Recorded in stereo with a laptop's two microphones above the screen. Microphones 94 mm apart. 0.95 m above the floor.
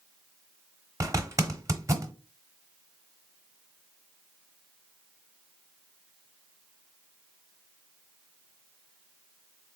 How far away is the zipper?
About 0.9 m.